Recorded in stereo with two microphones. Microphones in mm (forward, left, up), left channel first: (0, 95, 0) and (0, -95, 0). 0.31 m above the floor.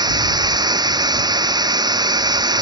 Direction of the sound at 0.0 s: 20° right (ahead or behind).